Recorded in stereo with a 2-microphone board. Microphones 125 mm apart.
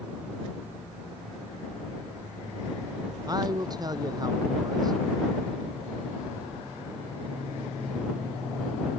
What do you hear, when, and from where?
3.3 s a man speaking: 30° right (ahead or behind)